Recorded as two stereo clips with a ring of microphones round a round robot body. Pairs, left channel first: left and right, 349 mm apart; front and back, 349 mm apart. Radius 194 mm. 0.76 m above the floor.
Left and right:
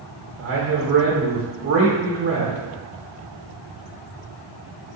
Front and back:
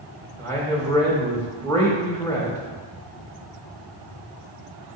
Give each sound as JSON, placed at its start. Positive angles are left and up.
{"t": 0.4, "sound": "a man speaking", "azimuth_deg": -80, "distance_m": 1.0}